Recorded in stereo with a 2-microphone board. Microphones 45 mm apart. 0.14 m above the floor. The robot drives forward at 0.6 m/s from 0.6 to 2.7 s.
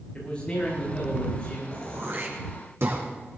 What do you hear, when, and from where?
0.1 s a man speaking: 25° left (ahead or behind), 8 m; by 1.6 s 20° left (ahead or behind), 8.5 m
1.7 s throat clearing: 55° right (ahead or behind), 4 m; by 3.0 s 60° right (ahead or behind), 4 m